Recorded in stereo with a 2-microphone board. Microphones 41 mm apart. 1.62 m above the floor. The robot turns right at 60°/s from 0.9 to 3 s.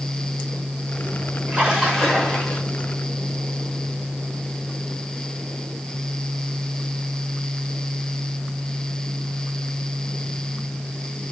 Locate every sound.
1.5 s a splash: 35° right, 1.8 m; by 2.6 s 30° left, 1.8 m